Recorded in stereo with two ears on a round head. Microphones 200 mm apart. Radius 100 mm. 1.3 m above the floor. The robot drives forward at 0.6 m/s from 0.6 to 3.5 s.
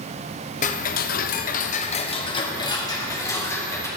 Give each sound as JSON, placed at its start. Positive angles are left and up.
{"t": 0.6, "sound": "ticking", "side_deg": 35, "distance_m": 0.6}